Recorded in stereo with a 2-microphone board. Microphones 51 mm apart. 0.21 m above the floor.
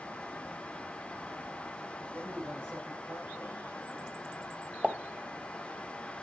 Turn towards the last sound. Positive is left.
turn(degrees=-20)  # may be behind; listen again after turning